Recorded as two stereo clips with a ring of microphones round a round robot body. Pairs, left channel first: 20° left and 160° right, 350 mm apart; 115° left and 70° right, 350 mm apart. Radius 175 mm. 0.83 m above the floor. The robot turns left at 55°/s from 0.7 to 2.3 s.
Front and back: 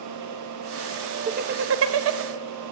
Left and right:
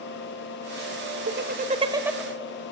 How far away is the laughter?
About 0.9 m.